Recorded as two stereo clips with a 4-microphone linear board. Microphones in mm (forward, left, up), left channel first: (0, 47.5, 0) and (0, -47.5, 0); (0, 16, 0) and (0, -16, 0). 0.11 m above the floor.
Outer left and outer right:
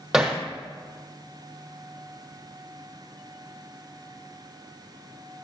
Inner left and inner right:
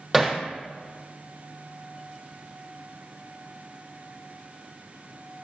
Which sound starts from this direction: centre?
Hammering, at 0.1 s.